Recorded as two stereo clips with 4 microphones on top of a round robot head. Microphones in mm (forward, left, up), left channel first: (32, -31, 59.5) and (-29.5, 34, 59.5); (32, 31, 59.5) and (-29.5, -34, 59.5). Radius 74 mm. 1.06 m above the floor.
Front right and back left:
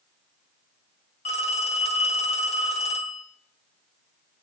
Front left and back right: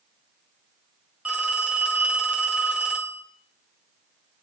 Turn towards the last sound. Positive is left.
turn(degrees=-55)